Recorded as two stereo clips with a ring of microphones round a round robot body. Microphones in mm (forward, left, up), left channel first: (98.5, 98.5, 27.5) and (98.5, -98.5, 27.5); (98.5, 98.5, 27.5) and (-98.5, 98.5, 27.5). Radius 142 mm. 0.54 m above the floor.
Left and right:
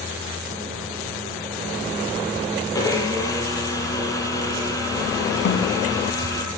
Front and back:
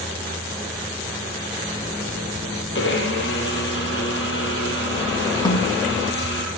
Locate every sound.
2.8 s a blender: 20° left, 6 m
5.5 s a snare drum: 70° left, 6 m